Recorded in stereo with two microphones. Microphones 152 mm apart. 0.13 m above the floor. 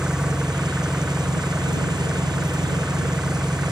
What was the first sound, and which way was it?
An engine running, 5° right (ahead or behind).